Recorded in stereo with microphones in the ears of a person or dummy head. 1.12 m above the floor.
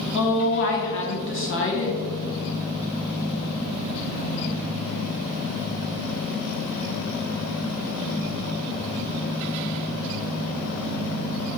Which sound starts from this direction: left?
A woman speaking, at 0.1 s.